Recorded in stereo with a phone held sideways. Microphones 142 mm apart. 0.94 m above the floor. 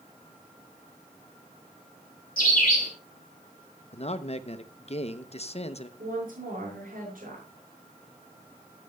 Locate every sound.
2.4 s a bird: 80° left, 2.5 m
3.9 s a man speaking: 45° left (ahead or behind), 0.6 m
6.0 s a woman speaking: 80° right, 6.5 m